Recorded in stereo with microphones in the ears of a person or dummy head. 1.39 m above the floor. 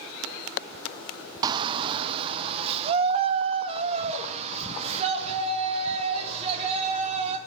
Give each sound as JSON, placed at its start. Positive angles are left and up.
{"t": 1.4, "sound": "a shout", "side_deg": -25, "distance_m": 0.6}